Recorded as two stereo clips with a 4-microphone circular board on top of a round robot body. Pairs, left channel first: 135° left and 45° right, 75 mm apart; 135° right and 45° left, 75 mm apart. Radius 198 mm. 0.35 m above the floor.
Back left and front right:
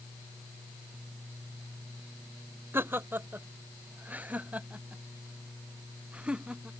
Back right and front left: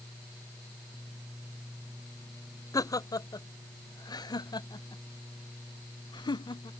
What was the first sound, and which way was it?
Laughter, 105° right.